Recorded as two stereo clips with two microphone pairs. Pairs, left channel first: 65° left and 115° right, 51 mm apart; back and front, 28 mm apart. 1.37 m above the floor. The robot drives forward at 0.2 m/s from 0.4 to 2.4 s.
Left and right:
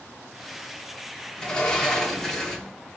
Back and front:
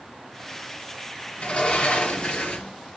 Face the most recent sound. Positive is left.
turn(degrees=145)